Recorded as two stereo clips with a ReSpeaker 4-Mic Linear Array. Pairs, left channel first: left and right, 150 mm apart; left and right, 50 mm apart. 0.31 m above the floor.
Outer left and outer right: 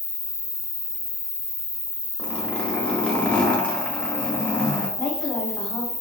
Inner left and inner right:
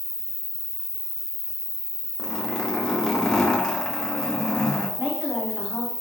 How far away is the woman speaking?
About 1.6 m.